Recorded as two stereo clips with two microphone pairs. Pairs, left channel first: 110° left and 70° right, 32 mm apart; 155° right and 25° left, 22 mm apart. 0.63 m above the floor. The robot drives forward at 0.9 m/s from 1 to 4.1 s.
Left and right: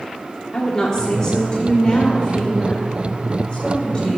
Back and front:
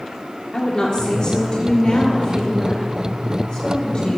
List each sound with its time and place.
0.5 s a woman speaking: 170° left, 1.6 m; by 4.2 s 175° left, 4 m